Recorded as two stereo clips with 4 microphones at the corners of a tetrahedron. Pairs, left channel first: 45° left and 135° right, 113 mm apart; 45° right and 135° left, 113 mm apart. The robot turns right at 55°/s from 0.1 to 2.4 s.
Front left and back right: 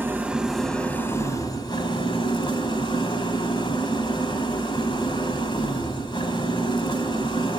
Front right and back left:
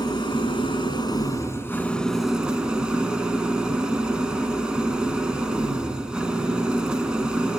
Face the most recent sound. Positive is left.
turn(degrees=55)